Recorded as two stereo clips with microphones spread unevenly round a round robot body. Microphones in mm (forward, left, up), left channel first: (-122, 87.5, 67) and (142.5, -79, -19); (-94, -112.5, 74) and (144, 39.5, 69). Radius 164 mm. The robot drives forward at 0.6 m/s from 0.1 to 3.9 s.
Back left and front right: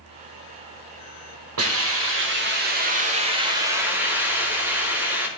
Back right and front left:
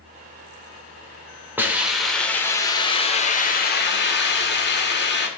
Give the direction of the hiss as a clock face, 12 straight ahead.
2 o'clock.